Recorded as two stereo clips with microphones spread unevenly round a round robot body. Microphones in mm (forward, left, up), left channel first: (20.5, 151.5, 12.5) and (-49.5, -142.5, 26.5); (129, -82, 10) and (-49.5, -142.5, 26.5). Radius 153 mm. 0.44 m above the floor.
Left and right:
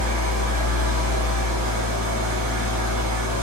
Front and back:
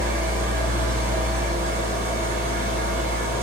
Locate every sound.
0.0 s an engine running: 120° right, 2 m